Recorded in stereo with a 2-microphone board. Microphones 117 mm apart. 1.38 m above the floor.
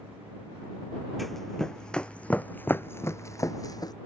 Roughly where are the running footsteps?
Centre.